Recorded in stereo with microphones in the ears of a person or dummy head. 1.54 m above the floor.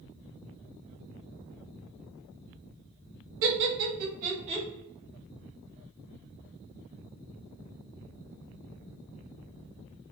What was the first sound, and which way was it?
Laughter, 65° right (ahead or behind).